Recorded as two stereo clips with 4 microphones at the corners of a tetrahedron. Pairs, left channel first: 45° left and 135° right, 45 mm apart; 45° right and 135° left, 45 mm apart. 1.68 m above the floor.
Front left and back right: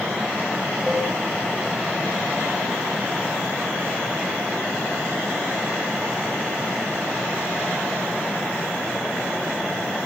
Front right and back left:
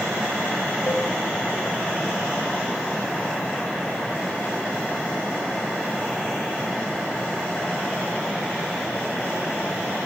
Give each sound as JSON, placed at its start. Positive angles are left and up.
{"t": 0.9, "sound": "a cowbell", "azimuth_deg": -30, "distance_m": 3.5}